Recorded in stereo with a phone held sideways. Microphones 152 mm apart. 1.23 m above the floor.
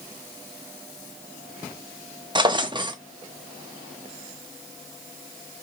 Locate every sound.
2.4 s a drawer: 30° right (ahead or behind), 0.5 m